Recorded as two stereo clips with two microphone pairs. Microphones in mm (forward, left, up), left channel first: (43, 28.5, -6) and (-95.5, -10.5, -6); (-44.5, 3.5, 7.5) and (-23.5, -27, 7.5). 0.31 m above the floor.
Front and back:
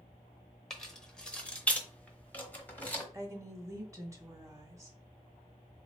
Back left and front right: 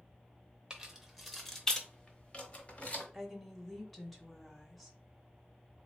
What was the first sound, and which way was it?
Keys jangling, 70° right.